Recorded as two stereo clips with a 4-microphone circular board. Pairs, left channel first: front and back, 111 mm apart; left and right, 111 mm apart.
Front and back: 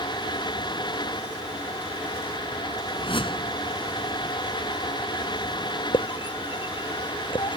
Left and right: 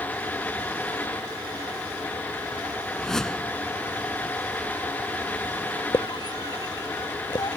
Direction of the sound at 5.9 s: 40° left.